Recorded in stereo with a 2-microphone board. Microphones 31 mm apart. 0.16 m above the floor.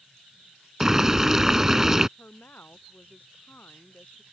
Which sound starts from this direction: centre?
Boiling, at 0.8 s.